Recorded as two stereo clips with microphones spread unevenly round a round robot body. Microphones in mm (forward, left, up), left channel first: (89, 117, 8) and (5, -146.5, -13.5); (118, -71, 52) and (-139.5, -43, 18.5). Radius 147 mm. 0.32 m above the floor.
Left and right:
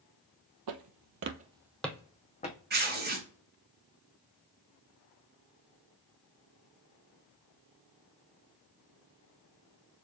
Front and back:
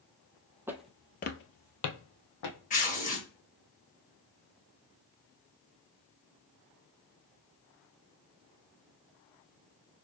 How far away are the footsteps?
About 0.8 m.